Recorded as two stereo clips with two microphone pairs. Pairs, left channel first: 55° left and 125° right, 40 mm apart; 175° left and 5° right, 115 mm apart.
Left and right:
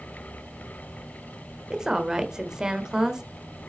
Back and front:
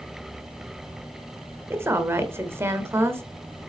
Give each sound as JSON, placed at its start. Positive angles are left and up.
{"t": 1.7, "sound": "a woman speaking", "azimuth_deg": -65, "distance_m": 1.2}